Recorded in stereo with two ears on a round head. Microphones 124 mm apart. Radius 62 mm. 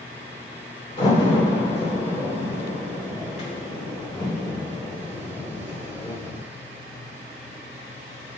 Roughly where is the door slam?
Left.